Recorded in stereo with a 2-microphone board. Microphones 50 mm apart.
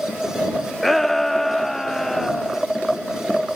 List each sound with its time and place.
0.8 s a shout: 5° left (ahead or behind)